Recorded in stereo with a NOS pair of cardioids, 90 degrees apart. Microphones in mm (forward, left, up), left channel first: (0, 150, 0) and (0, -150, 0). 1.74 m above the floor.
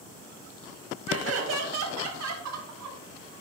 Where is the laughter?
50° right, 1.8 m; by 3.0 s 75° right, 3 m.